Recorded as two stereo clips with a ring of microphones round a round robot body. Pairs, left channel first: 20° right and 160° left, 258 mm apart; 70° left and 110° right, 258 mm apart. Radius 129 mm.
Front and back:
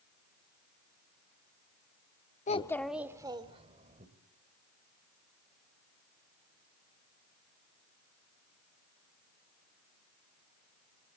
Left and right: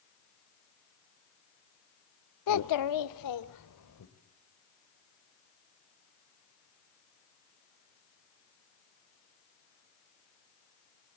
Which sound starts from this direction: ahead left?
A child speaking, at 2.5 s.